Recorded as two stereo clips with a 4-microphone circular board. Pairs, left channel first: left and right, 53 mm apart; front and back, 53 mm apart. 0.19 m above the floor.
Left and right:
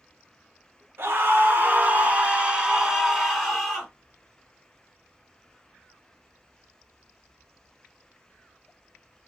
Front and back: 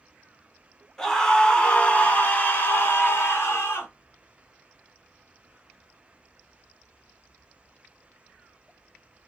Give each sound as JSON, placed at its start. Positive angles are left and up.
{"t": 1.0, "sound": "a scream", "azimuth_deg": -80, "distance_m": 1.4}